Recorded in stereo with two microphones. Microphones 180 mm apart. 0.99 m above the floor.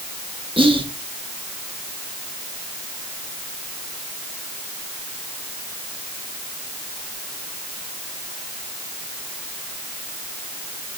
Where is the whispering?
30° right (ahead or behind), 1.5 m.